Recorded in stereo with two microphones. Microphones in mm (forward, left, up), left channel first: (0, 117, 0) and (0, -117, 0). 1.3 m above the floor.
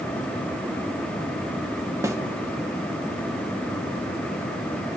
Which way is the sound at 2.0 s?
15° right (ahead or behind).